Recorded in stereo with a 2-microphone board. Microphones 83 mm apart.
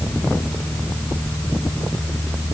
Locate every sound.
Only background noise.